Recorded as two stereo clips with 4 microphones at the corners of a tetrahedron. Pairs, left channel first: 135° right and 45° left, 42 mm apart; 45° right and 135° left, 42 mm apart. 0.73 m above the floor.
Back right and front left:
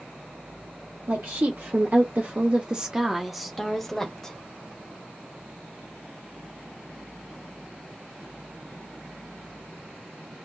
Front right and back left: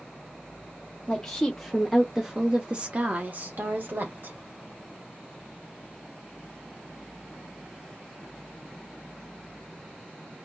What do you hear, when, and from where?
1.1 s a woman speaking: 25° left, 1.1 m; by 4.4 s 150° left, 1.3 m